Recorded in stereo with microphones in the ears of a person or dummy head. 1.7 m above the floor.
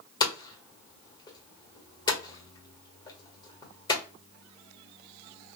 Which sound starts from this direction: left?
Hammering, at 0.2 s.